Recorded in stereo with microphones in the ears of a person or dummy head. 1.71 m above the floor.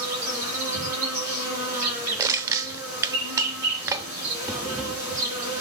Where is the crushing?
15° right (ahead or behind), 0.6 m.